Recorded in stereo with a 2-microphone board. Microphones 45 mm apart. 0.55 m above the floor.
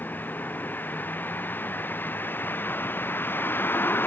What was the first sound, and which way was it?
A vehicle, 45° left (ahead or behind).